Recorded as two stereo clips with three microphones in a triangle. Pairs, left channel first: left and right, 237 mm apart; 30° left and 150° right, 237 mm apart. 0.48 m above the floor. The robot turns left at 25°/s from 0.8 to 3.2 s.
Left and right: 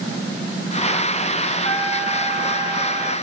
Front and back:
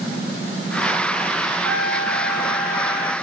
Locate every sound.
1.6 s a trumpet: 50° right, 3.5 m; by 3.1 s 90° right, 3.5 m